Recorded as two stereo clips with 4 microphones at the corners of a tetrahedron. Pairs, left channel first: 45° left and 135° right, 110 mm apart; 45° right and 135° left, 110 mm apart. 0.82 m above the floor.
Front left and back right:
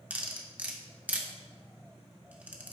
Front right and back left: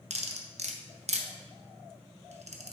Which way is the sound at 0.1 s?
150° left.